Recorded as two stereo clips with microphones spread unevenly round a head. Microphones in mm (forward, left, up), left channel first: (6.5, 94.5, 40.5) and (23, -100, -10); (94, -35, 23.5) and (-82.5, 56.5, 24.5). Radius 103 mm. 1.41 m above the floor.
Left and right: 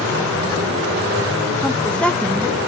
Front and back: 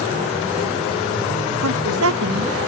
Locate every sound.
1.6 s a woman speaking: straight behind